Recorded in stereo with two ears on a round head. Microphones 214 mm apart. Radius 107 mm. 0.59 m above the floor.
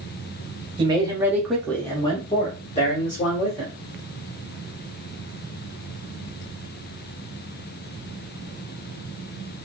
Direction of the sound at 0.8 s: 20° right (ahead or behind).